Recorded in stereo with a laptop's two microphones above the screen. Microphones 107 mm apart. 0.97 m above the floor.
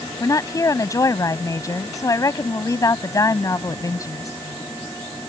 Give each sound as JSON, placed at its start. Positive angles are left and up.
{"t": 0.2, "sound": "a woman speaking", "side_deg": 30}